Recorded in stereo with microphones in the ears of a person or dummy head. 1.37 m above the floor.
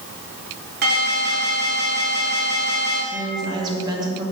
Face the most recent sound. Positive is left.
turn(degrees=-25)  # may be behind; listen again after turning